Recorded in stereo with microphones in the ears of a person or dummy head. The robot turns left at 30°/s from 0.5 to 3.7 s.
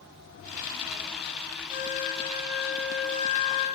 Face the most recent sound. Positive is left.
turn(degrees=140)